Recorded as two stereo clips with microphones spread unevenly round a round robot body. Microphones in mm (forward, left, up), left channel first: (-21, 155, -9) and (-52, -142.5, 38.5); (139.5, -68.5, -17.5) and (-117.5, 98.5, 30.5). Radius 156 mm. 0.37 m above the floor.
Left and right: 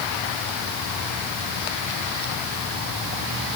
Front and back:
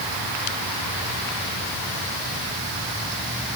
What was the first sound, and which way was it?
Only background noise.